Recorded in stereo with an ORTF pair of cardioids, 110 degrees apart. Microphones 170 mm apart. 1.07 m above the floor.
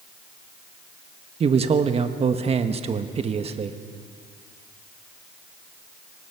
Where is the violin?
No violin in this recording.